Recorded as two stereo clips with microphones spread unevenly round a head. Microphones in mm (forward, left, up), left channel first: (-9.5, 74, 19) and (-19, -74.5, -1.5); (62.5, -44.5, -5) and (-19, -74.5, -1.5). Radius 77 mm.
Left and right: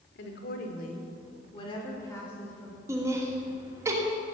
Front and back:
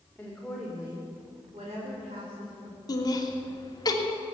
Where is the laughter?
20° right, 2.5 m.